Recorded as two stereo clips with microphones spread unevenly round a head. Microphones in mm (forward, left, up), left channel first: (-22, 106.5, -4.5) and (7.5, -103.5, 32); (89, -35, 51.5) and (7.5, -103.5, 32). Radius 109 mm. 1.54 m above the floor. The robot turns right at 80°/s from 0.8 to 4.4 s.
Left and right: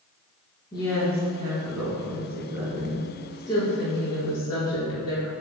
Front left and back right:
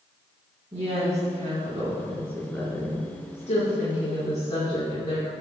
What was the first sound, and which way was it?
A woman speaking, 170° left.